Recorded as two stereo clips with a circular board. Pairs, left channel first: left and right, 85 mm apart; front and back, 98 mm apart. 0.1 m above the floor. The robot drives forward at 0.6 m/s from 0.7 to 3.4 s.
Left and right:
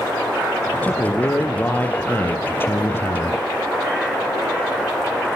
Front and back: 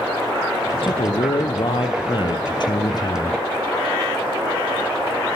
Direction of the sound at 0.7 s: 20° left.